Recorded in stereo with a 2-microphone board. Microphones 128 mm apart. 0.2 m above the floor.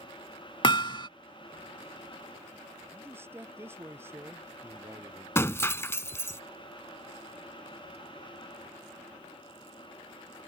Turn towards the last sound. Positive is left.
turn(degrees=20)  # may be behind; listen again after turning